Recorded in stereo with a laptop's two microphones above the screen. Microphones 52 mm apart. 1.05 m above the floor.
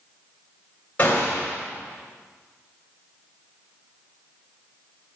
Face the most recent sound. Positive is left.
turn(degrees=30)  # may be behind; listen again after turning